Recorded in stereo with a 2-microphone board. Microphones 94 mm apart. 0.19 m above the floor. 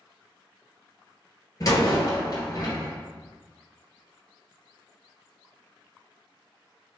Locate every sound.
1.6 s a door slam: 45° left (ahead or behind), 2 m